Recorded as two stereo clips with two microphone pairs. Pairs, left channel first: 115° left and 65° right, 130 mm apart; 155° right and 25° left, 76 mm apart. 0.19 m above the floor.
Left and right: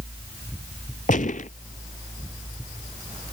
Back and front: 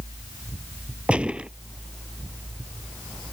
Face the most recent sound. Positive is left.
turn(degrees=100)